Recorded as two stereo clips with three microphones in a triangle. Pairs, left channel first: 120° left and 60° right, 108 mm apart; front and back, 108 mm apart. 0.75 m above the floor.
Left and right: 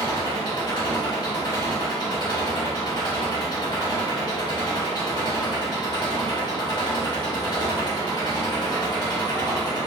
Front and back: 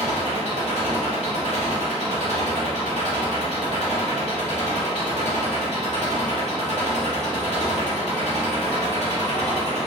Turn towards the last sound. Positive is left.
turn(degrees=165)